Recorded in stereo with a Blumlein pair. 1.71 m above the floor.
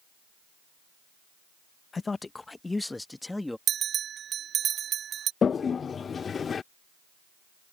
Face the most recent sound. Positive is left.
turn(degrees=20)